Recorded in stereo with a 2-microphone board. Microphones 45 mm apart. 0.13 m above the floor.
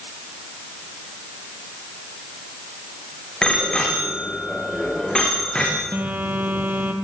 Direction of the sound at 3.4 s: 20° left (ahead or behind).